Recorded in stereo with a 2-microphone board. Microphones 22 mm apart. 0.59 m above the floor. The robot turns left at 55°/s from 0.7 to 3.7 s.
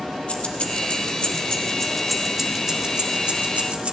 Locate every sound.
0.3 s keys jangling: 65° left (ahead or behind), 1.0 m; by 3.9 s 70° right (ahead or behind), 1.0 m